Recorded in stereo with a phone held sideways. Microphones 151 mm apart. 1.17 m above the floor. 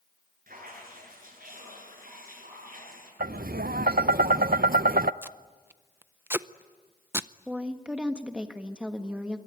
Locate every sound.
0.5 s dripping: 70° right (ahead or behind), 8.5 m
3.2 s tapping: 80° right, 0.5 m
5.2 s tape being pulled: 15° right (ahead or behind), 0.5 m
7.5 s a woman speaking: 5° right (ahead or behind), 1.5 m